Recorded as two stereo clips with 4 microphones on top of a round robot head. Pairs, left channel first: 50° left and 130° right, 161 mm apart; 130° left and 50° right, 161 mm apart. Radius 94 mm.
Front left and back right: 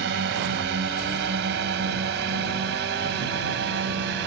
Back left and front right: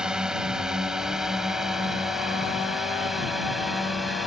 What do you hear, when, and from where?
0.0 s a drone: 135° right; by 4.3 s 140° right